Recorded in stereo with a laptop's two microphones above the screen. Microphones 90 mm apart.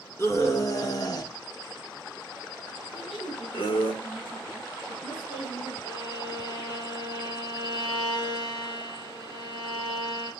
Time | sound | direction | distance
0.2 | a scream | 30° left (ahead or behind) | 1.5 m
2.9 | a woman speaking | 80° left | 5 m
5.8 | a violin | 55° left (ahead or behind) | 6 m